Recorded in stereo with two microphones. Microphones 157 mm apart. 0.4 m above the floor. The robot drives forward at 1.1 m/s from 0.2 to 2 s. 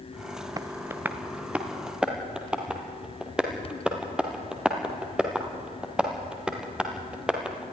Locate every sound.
0.6 s tapping: 25° right (ahead or behind), 0.6 m; by 7.6 s 5° right (ahead or behind), 2 m